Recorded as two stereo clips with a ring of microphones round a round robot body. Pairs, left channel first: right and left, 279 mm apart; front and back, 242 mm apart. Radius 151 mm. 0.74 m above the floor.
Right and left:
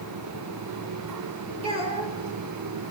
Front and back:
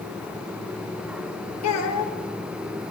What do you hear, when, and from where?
1.6 s a child speaking: 20° left, 1.9 m